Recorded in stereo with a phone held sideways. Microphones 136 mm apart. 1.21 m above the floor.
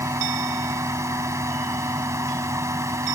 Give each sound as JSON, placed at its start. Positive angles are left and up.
{"t": 0.0, "sound": "a fan", "side_deg": -20}